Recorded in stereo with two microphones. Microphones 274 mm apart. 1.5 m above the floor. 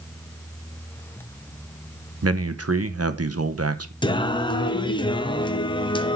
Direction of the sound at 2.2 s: 60° right (ahead or behind).